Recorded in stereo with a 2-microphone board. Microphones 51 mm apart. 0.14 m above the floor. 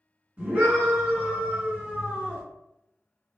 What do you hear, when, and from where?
0.4 s a scream: 25° right (ahead or behind), 1.9 m